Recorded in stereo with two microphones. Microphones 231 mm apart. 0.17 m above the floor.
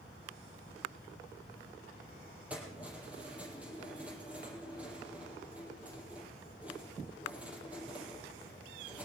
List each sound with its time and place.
2.5 s keys jangling: 5° right (ahead or behind), 4 m